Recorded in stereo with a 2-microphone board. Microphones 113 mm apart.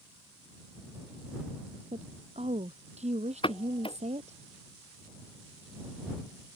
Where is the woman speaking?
75° right (ahead or behind).